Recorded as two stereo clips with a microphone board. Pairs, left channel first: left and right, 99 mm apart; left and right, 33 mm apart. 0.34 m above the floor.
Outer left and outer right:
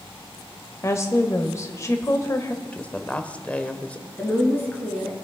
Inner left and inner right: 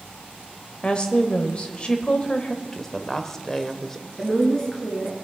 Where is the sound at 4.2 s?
20° left (ahead or behind), 4.5 m.